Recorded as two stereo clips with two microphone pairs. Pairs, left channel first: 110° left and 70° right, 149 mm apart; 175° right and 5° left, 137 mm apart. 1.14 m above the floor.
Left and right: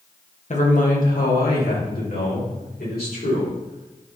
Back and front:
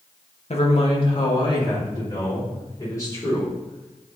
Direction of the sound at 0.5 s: 145° left.